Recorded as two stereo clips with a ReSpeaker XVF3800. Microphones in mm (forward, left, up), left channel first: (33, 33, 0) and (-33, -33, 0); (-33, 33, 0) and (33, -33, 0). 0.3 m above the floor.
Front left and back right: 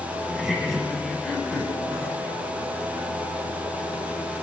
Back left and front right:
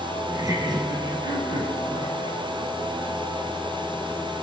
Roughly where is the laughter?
Ahead right.